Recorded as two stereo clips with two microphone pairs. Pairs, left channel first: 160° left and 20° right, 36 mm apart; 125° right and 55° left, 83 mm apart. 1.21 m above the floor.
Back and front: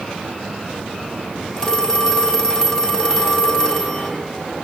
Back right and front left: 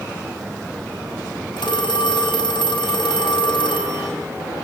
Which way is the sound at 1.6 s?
130° right.